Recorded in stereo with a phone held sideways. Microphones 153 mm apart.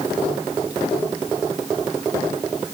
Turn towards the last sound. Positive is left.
No sound to turn to.